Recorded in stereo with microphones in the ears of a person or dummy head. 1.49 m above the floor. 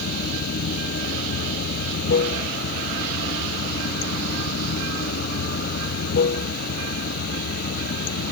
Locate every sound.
0.0 s running water: 55° left (ahead or behind)